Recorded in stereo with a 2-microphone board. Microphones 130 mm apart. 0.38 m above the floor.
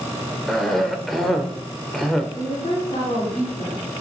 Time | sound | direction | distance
0.5 | a cough | centre (ahead or behind) | 0.8 m
2.4 | a woman speaking | 55° left (ahead or behind) | 4 m